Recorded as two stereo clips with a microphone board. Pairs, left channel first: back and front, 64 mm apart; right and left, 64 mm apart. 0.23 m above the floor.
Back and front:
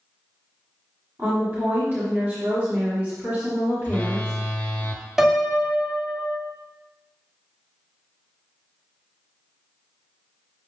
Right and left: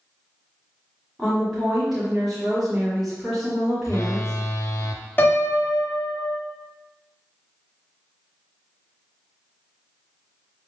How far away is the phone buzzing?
About 0.5 m.